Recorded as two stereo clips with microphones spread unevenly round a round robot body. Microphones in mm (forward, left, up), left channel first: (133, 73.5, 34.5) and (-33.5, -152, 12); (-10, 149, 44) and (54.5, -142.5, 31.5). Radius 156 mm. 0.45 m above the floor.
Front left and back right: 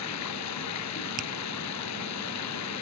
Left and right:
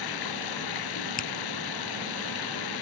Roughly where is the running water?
Left.